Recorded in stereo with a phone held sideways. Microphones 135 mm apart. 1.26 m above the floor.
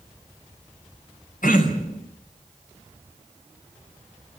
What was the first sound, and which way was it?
Throat clearing, 85° left.